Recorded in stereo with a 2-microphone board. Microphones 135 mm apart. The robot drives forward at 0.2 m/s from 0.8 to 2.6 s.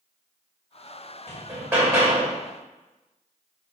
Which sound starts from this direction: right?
Hammering, at 1.3 s.